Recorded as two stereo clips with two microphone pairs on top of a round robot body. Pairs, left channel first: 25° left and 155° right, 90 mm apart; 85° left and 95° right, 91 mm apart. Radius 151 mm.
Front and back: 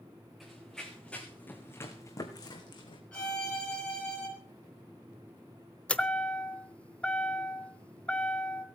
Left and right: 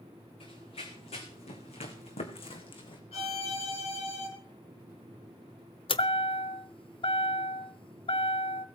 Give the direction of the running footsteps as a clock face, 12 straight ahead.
8 o'clock.